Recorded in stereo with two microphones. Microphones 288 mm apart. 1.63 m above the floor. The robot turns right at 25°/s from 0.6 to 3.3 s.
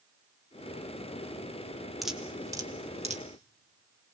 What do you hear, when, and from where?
2.0 s dripping: centre (ahead or behind), 1.5 m; by 3.2 s 25° right (ahead or behind), 1.5 m